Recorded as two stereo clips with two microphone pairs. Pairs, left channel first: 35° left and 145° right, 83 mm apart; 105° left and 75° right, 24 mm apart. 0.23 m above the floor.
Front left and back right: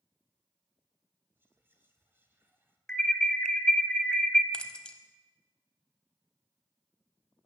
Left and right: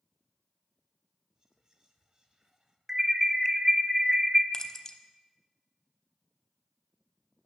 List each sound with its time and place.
1.4 s whispering: 105° right, 1.2 m
2.9 s an alarm: 30° right, 0.6 m
4.5 s keys jangling: 95° left, 0.6 m